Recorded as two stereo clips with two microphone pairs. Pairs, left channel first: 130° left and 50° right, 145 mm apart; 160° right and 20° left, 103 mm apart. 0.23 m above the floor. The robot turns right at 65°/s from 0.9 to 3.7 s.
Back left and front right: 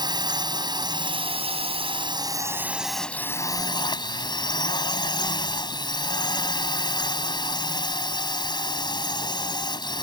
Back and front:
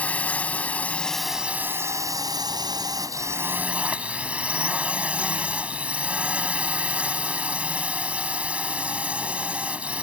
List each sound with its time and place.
0.0 s a drone: 90° right; by 10.0 s 95° left